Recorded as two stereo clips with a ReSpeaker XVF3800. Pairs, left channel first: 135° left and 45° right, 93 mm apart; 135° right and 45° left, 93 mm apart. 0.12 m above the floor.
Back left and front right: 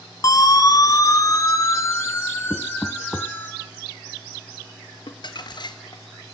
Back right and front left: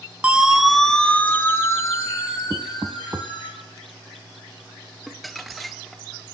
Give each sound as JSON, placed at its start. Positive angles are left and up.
{"t": 0.2, "sound": "a siren", "azimuth_deg": 115, "distance_m": 2.5}
{"t": 2.5, "sound": "knocking", "azimuth_deg": 60, "distance_m": 0.7}
{"t": 5.1, "sound": "crumpling", "azimuth_deg": 135, "distance_m": 2.0}